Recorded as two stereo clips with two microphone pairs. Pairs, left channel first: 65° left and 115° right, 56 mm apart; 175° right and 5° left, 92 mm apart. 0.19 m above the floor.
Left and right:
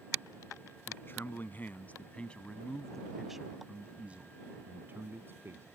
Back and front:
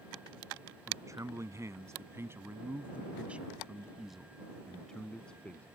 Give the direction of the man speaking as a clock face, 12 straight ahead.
11 o'clock.